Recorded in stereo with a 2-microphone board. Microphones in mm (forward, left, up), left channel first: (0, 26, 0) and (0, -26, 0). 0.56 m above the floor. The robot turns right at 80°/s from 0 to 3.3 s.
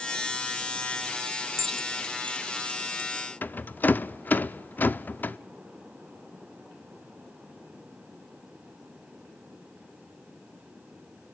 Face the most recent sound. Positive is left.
turn(degrees=40)  # may be behind; listen again after turning